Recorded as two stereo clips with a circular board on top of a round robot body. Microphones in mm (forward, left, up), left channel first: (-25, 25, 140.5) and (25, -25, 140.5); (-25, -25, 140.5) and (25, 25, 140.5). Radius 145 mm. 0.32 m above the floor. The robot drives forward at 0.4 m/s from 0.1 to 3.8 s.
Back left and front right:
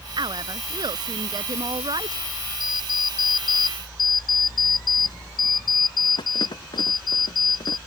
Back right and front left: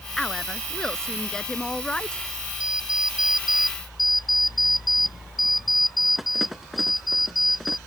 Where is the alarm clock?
125° left; by 7.8 s 135° left.